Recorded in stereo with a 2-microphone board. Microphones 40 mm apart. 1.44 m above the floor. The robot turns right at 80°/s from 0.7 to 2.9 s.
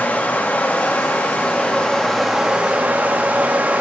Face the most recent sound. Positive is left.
turn(degrees=-120)